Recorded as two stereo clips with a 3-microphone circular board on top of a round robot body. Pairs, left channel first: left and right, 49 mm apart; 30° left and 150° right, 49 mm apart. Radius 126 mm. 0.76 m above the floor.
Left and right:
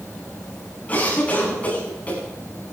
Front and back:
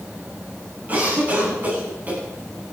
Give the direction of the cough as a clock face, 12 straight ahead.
7 o'clock.